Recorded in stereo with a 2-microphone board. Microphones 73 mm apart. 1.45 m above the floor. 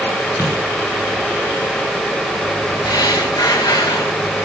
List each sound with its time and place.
0.4 s a dropped coin: 40° left (ahead or behind), 4.5 m
2.9 s breathing: 65° left (ahead or behind), 1.6 m